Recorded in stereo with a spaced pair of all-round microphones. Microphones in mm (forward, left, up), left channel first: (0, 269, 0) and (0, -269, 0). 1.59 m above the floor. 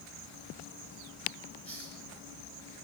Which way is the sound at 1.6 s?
75° right (ahead or behind).